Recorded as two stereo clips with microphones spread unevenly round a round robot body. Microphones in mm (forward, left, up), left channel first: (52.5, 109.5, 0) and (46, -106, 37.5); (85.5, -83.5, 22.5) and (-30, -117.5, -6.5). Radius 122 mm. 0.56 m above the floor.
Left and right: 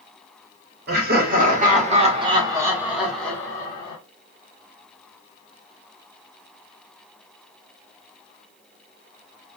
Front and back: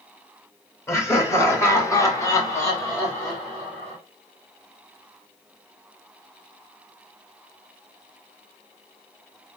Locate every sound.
0.9 s laughter: 55° right, 1.7 m; by 4.0 s 100° left, 1.4 m